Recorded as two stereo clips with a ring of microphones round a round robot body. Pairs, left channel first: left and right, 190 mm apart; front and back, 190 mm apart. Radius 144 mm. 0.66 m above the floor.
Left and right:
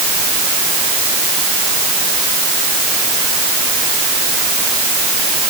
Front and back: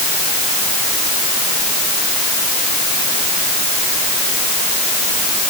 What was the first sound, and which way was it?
Only background noise.